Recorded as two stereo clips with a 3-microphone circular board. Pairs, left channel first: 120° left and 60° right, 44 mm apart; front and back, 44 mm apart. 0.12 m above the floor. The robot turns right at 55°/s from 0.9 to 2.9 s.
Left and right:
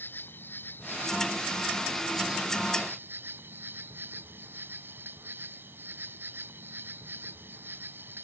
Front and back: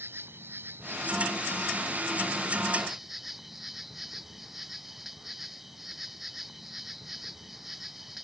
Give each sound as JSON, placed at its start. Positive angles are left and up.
{"t": 0.0, "sound": "an insect", "azimuth_deg": 155}